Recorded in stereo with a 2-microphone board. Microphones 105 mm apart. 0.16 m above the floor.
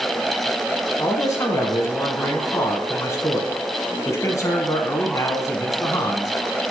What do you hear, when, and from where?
1.0 s a man speaking: 30° left (ahead or behind), 1.2 m